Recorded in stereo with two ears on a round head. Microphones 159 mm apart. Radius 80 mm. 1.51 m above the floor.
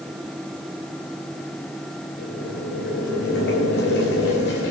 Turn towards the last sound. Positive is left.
turn(degrees=65)  # may be behind; listen again after turning